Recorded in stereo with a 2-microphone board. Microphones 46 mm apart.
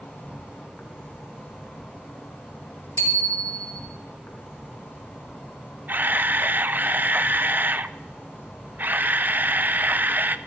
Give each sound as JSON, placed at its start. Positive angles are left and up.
{"t": 0.0, "sound": "an insect", "side_deg": 50, "distance_m": 4.0}
{"t": 3.0, "sound": "a bicycle bell", "side_deg": 80, "distance_m": 3.0}
{"t": 5.9, "sound": "a camera shutter", "side_deg": -45, "distance_m": 0.6}